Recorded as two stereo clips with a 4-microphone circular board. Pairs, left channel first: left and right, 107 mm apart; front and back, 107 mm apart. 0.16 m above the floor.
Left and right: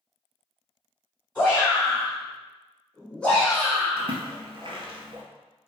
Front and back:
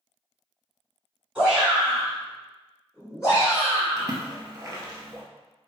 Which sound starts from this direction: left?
A shout, at 1.4 s.